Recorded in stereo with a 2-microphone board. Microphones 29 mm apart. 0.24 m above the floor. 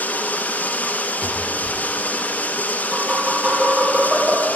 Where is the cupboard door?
45° right (ahead or behind), 2 m.